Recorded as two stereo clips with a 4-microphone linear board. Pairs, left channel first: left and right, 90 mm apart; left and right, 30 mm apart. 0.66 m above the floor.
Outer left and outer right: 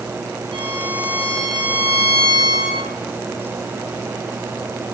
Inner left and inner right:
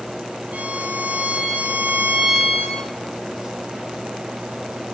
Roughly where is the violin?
Right.